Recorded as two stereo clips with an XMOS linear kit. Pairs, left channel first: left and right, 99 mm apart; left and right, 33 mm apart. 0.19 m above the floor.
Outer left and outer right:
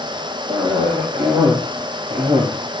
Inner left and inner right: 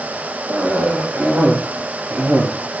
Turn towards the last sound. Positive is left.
turn(degrees=-55)  # may be behind; listen again after turning